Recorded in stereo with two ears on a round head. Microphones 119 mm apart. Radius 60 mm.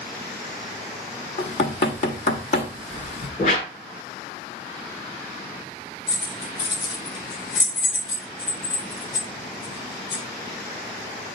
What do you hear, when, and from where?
1.4 s knocking: 65° left (ahead or behind), 1.3 m
3.4 s a whoosh: 60° left (ahead or behind), 1.9 m
6.1 s keys jangling: 40° left (ahead or behind), 6.5 m